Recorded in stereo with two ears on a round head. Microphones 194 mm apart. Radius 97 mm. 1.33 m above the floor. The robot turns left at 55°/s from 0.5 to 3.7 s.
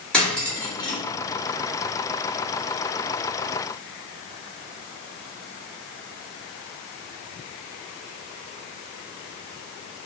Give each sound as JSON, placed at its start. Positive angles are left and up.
{"t": 0.1, "sound": "cutlery clinking", "side_deg": 5, "distance_m": 1.5}